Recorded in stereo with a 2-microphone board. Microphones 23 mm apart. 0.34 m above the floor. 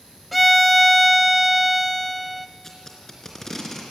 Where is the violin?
Centre (ahead or behind), 0.6 m.